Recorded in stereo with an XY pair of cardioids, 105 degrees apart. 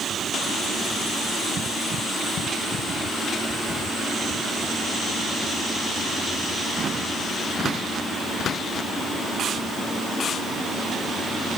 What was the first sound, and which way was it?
Only background noise.